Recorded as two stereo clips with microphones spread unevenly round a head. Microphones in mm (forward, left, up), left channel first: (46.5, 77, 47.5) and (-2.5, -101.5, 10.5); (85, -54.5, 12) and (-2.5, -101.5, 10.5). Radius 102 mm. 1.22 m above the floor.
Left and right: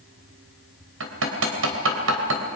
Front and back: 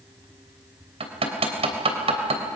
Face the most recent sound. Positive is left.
turn(degrees=-135)